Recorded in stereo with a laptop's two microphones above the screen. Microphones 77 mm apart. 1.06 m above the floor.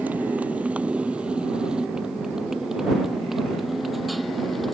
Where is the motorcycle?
20° right (ahead or behind); by 4.7 s centre (ahead or behind).